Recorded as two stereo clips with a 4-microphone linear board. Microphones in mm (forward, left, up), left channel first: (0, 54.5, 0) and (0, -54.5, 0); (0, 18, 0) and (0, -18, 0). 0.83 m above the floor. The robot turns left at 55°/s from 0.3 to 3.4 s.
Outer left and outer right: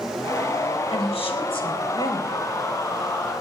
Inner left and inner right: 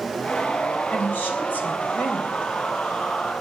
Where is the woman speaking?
100° left, 3.5 m; by 2.4 s 20° left, 3.5 m.